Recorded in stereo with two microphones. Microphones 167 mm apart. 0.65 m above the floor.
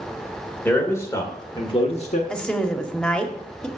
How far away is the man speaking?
About 1.9 m.